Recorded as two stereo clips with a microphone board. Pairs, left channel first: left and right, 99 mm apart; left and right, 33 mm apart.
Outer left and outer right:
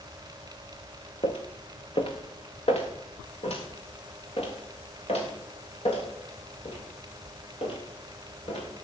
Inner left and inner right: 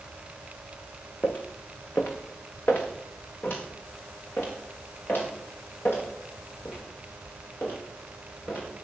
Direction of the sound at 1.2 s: 70° left (ahead or behind).